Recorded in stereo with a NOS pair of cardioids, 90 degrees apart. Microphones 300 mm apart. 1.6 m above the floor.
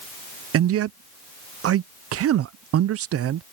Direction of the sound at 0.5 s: 55° right.